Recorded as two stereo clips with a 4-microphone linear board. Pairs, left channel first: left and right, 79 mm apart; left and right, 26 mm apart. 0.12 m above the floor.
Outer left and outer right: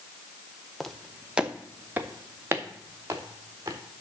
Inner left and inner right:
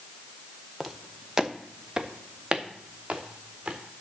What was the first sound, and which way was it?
Footsteps, 5° left (ahead or behind).